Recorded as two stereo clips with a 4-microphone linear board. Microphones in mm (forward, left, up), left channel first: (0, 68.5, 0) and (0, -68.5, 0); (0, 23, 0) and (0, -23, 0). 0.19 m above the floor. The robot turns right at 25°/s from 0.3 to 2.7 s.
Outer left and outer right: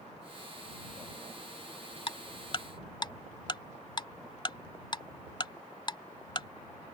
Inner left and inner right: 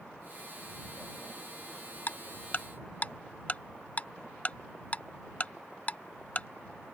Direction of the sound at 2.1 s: 45° left (ahead or behind).